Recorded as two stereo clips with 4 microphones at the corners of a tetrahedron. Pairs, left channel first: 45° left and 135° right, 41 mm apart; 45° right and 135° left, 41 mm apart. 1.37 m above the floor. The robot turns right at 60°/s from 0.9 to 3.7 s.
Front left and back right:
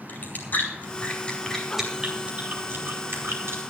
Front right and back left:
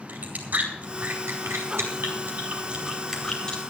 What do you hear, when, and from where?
0.1 s chewing: 85° left, 4.5 m; by 3.6 s 110° right, 4.5 m